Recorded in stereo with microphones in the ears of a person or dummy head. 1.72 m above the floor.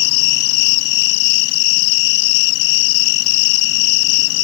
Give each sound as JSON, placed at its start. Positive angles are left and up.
{"t": 0.0, "sound": "an insect", "side_deg": 65}